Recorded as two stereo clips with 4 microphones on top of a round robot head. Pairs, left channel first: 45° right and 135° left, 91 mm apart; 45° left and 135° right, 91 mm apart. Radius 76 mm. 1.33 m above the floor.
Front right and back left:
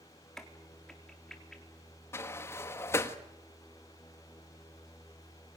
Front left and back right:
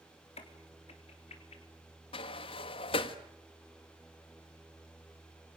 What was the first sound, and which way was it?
A crack, 40° left.